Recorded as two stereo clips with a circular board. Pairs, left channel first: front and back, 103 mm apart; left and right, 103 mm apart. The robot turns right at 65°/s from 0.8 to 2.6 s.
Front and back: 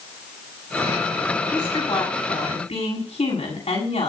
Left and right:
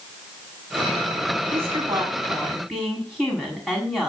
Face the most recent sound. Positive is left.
turn(degrees=-5)